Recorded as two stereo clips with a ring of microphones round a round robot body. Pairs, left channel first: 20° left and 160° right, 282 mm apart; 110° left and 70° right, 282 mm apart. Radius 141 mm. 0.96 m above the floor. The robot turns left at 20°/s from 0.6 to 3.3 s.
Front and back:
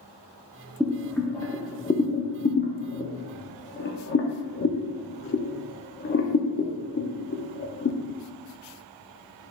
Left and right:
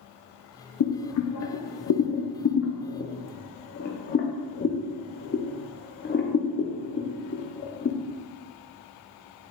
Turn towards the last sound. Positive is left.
turn(degrees=65)